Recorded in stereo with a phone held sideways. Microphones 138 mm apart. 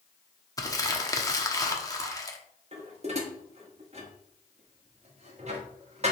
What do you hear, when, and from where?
0.6 s crumpling: 25° left (ahead or behind), 1.0 m
2.7 s dishes clattering: 50° right (ahead or behind), 1.3 m